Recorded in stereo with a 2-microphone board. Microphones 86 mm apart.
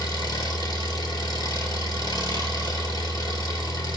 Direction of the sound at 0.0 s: 50° left (ahead or behind).